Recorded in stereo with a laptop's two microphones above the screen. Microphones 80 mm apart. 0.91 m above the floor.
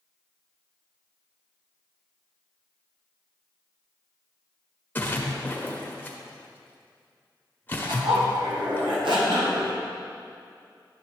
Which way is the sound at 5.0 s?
25° left (ahead or behind).